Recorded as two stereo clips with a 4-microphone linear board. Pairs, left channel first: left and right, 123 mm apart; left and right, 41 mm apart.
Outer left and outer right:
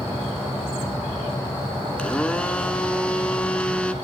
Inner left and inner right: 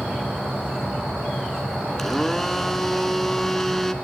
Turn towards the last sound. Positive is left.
turn(degrees=10)  # may be behind; listen again after turning